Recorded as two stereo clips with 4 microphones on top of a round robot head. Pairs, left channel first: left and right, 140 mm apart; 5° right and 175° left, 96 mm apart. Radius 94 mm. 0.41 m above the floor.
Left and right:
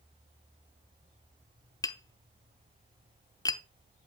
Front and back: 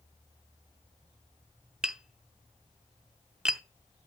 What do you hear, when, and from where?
1.8 s tapping: 100° left, 0.7 m